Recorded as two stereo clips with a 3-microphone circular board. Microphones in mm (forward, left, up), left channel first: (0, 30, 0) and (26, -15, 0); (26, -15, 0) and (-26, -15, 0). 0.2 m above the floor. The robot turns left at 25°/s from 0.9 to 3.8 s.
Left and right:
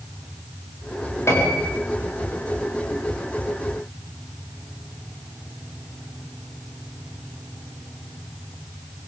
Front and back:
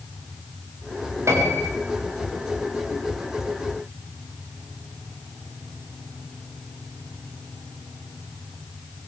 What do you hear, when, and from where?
1.3 s a piano: 155° left, 9.5 m; by 1.7 s 140° left, 9.5 m